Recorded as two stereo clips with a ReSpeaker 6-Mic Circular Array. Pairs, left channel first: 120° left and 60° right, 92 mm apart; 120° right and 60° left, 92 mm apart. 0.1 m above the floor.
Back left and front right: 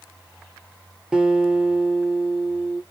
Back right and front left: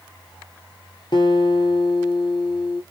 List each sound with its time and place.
1.1 s a guitar: 140° right, 0.9 m